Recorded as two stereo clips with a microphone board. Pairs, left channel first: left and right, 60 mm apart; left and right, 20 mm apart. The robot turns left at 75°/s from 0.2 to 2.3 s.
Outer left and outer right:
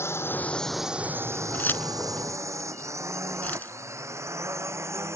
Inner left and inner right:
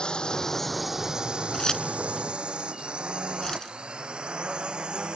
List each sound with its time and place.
0.0 s a drone: 45° left (ahead or behind); by 5.2 s 50° right (ahead or behind)
1.5 s keys jangling: 30° left (ahead or behind)